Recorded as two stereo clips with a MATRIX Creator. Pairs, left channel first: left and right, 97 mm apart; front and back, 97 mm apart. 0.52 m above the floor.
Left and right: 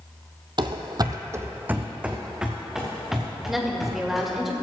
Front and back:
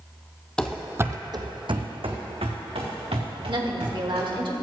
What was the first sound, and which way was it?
Running footsteps, 80° right.